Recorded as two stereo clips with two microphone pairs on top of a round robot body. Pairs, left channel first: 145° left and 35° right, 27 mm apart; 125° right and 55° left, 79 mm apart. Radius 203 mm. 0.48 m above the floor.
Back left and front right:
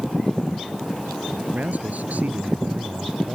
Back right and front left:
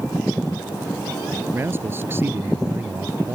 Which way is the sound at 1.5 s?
5° right.